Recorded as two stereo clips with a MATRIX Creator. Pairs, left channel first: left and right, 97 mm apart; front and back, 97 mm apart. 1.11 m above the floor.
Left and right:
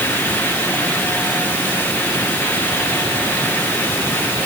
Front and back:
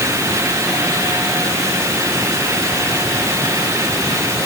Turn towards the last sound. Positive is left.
No sound to turn to.